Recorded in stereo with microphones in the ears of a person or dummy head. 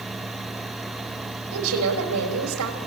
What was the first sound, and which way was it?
A woman speaking, 85° right.